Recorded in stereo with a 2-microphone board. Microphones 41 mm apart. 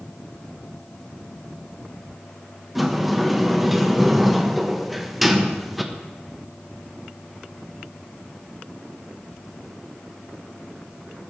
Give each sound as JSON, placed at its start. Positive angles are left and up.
{"t": 2.8, "sound": "a sliding door", "side_deg": 0, "distance_m": 1.2}